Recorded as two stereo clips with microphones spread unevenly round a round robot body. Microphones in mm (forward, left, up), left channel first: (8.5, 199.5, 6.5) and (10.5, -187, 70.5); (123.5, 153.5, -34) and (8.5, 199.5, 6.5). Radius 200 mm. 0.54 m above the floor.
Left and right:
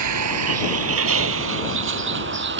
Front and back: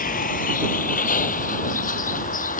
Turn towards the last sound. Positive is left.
turn(degrees=-25)